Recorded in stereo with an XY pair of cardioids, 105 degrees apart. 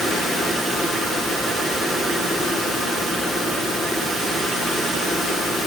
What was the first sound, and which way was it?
Only background noise.